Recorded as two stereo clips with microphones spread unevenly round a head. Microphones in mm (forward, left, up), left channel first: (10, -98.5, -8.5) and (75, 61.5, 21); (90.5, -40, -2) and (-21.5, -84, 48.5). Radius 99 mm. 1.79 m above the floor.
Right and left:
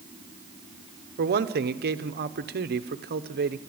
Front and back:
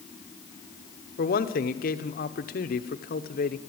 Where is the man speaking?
40° left, 1.2 m.